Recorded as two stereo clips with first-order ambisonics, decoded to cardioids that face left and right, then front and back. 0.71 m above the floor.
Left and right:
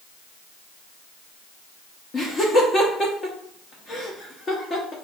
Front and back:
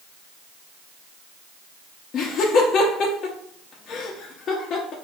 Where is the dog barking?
No dog barking in this recording.